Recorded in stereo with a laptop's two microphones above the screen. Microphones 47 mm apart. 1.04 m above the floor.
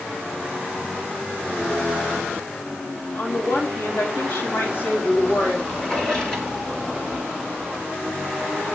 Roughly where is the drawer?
Centre.